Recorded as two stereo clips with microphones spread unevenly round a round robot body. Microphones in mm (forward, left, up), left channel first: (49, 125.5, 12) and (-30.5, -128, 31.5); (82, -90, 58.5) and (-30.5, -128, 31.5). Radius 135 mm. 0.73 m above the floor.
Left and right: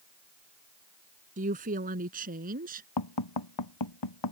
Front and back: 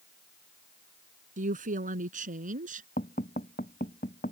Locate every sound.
1.4 s a woman speaking: 170° right
3.0 s tapping: 75° left